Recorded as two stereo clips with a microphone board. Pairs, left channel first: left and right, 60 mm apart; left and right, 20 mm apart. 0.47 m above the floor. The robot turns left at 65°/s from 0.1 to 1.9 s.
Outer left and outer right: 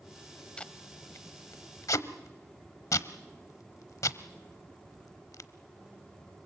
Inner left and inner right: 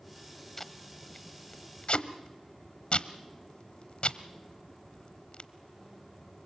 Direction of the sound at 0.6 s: 15° left (ahead or behind).